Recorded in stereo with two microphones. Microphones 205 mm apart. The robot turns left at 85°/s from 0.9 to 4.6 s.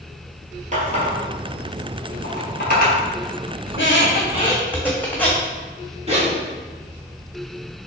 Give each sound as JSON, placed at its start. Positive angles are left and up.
{"t": 0.7, "sound": "a running tap", "side_deg": -35, "distance_m": 1.6}
{"t": 3.7, "sound": "a squeak", "side_deg": 85, "distance_m": 1.4}
{"t": 6.1, "sound": "a zipper", "side_deg": -30, "distance_m": 1.4}